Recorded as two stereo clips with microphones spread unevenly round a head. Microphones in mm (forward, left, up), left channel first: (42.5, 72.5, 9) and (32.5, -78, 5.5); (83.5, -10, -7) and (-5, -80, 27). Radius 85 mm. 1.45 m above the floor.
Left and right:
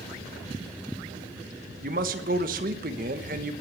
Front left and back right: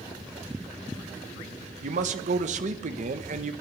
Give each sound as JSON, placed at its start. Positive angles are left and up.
{"t": 1.8, "sound": "a man speaking", "azimuth_deg": -140, "distance_m": 1.3}